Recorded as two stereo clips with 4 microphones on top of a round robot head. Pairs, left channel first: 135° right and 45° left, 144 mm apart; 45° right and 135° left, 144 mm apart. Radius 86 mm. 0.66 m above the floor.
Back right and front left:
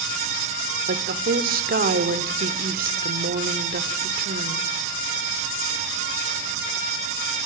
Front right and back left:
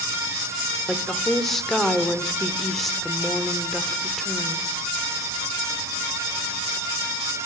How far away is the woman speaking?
About 1.8 m.